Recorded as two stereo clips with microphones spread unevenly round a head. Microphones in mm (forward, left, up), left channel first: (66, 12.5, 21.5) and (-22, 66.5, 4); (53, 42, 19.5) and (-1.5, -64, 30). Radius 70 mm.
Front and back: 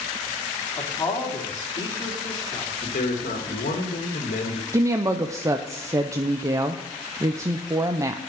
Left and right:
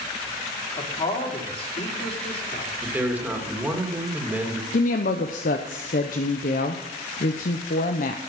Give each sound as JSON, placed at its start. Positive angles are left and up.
{"t": 0.8, "sound": "a man speaking", "azimuth_deg": 20, "distance_m": 3.0}
{"t": 2.8, "sound": "a man speaking", "azimuth_deg": -40, "distance_m": 2.0}
{"t": 4.7, "sound": "a woman speaking", "azimuth_deg": 90, "distance_m": 0.7}